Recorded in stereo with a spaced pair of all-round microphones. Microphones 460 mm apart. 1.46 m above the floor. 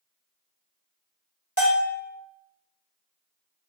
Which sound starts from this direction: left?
A bell, at 1.6 s.